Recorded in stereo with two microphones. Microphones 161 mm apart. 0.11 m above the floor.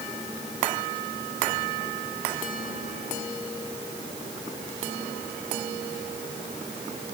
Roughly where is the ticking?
No ticking in this recording.